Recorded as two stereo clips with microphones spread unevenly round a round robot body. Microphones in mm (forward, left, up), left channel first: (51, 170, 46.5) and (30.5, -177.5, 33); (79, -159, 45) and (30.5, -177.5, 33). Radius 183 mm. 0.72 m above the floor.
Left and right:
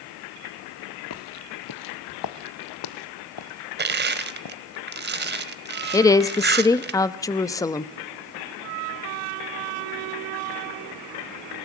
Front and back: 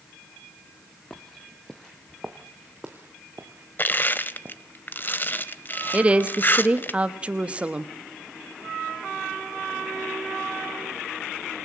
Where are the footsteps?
75° left, 0.9 m; by 4.5 s 115° left, 2.5 m.